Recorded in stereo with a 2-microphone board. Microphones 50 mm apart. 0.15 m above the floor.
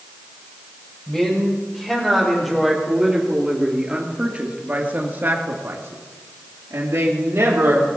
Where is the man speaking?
10° left (ahead or behind), 6 m; by 7.9 s 60° right (ahead or behind), 4.5 m.